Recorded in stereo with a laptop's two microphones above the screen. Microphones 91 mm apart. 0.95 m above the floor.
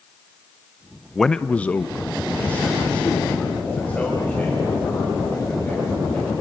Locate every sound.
1.1 s a man speaking: centre (ahead or behind), 0.5 m; by 6.3 s 15° left (ahead or behind), 7 m